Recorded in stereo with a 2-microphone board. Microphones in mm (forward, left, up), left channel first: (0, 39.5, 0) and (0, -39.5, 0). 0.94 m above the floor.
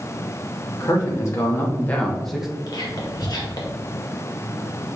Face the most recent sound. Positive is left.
turn(degrees=55)  # may be behind; listen again after turning